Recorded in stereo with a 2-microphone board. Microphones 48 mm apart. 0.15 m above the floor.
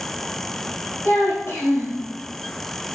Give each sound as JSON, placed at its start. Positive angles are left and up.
{"t": 1.1, "sound": "a child speaking", "side_deg": 65, "distance_m": 2.0}